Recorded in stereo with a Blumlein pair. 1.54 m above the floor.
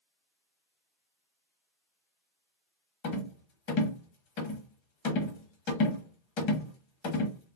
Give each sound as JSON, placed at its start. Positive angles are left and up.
{"t": 3.0, "sound": "a rattle", "azimuth_deg": 45, "distance_m": 0.9}